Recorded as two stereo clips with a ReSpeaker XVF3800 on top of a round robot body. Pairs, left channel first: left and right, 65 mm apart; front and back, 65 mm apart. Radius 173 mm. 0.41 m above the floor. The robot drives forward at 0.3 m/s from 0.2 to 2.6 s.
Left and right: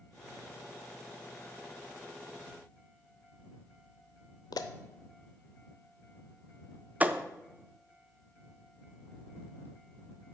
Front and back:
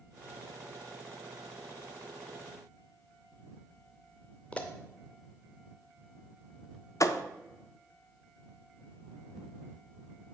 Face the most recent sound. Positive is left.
turn(degrees=-25)